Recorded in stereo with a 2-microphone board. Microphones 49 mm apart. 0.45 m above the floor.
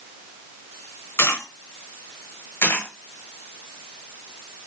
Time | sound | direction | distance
1.2 | a dropped coin | 65° left (ahead or behind) | 1.9 m
2.6 | a dropped coin | 60° left (ahead or behind) | 1.3 m